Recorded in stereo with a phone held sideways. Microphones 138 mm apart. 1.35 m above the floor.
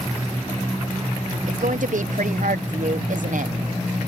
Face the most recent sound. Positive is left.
turn(degrees=-70)  # may be behind; listen again after turning